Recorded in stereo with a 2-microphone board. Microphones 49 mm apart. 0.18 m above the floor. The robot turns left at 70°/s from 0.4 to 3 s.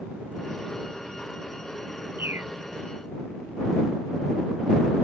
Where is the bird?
45° right (ahead or behind); by 2.5 s 60° right (ahead or behind).